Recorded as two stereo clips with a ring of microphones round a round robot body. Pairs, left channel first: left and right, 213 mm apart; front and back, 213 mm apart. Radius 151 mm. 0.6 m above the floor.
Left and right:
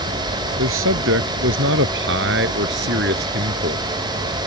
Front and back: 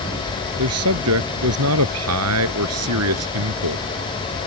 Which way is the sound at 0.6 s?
140° right.